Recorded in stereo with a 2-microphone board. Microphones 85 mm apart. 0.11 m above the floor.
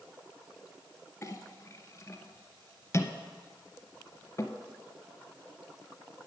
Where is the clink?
35° left (ahead or behind), 0.9 m.